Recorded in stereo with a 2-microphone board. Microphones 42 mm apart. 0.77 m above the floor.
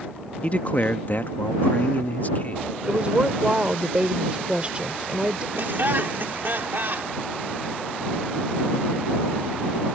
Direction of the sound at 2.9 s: 30° right (ahead or behind).